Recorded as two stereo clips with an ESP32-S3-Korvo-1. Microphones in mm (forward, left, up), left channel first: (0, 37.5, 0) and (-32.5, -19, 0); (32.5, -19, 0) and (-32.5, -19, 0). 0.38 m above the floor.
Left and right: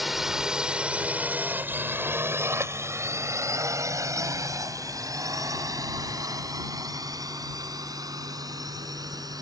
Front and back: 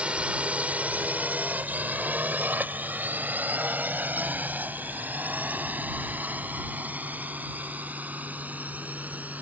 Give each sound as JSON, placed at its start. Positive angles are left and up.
{"t": 0.0, "sound": "a drone", "azimuth_deg": 155}